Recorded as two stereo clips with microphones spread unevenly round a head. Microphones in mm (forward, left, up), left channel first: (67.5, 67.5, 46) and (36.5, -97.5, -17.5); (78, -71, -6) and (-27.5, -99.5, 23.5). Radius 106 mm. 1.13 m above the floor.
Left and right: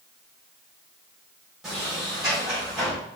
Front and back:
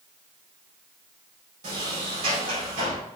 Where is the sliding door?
175° left, 4 m.